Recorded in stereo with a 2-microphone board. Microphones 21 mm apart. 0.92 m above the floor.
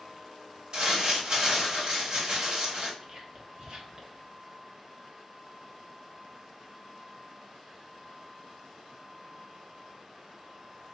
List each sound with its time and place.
0.7 s crumpling: 45° right (ahead or behind), 2 m
3.0 s whispering: 50° right (ahead or behind), 1.3 m